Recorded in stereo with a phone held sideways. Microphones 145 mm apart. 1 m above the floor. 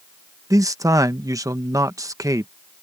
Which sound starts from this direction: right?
A man speaking, at 0.5 s.